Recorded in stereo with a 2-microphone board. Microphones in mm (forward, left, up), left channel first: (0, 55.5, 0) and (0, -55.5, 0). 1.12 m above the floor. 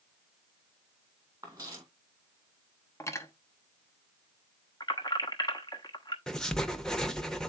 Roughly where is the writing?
Centre.